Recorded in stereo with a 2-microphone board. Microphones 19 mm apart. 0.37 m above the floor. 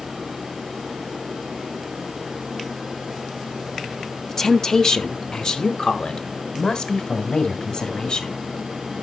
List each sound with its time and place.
4.3 s a woman speaking: 20° left (ahead or behind), 0.9 m; by 8.4 s 55° left (ahead or behind), 2.5 m